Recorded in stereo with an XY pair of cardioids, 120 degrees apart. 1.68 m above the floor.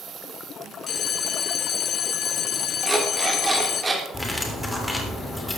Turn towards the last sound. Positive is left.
turn(degrees=15)